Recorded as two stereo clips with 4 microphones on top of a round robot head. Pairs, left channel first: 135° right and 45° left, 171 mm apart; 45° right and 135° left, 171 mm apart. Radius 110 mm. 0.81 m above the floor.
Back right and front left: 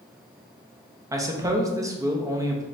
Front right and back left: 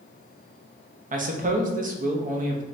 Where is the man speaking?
110° left, 0.9 m.